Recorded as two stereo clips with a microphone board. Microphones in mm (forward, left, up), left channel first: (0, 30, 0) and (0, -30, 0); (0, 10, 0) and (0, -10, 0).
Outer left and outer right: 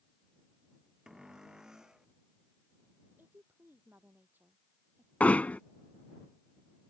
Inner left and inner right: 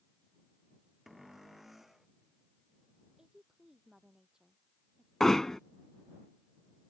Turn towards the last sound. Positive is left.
turn(degrees=25)  # may be behind; listen again after turning